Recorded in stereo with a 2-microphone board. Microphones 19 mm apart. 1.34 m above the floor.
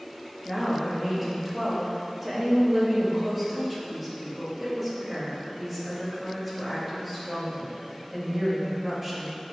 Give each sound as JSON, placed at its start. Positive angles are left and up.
{"t": 0.5, "sound": "a woman speaking", "side_deg": -10, "distance_m": 1.9}